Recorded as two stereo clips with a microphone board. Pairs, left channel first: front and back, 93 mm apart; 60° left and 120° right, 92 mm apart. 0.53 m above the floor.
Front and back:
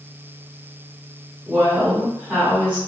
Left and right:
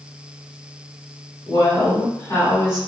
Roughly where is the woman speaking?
Behind left.